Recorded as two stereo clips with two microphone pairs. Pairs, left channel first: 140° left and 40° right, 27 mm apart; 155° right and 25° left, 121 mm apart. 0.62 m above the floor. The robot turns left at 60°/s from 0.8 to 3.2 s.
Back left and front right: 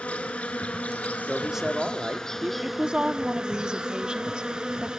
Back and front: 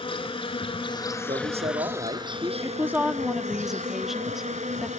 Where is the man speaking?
45° left, 1.1 m; by 2.5 s 30° right, 1.1 m.